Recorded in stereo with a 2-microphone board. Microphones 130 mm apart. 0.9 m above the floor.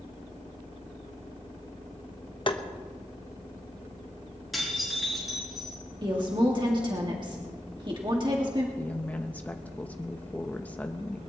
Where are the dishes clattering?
Centre (ahead or behind), 7.5 m.